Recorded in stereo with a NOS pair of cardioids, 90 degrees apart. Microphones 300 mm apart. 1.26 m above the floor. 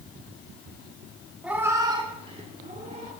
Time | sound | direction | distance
1.4 | a cat meowing | 5° right | 1.3 m